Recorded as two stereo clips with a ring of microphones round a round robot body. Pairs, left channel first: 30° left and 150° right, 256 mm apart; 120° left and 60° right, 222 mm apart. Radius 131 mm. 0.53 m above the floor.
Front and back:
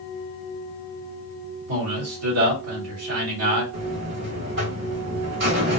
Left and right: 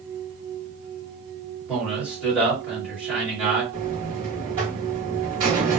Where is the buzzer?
120° right, 2.0 m.